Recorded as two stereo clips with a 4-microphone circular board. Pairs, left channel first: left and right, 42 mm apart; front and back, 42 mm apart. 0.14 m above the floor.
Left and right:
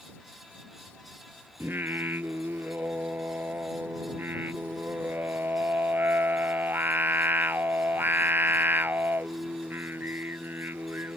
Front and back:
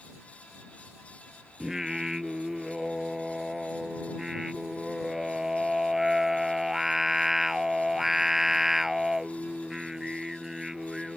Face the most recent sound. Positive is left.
turn(degrees=-100)